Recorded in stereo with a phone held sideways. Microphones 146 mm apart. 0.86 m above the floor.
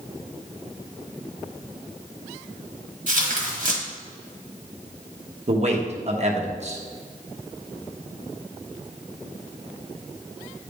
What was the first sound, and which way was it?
Tearing paper, 60° right (ahead or behind).